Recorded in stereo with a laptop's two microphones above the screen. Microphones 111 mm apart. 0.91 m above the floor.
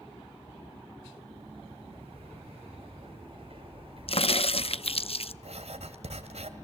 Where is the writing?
70° right (ahead or behind), 2.0 m.